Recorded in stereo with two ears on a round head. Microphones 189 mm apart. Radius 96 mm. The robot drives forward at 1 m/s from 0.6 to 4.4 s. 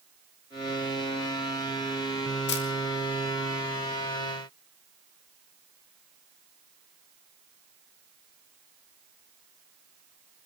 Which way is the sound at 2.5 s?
50° left (ahead or behind).